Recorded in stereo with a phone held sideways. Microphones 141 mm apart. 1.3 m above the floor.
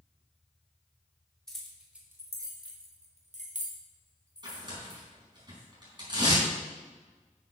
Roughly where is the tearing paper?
Right.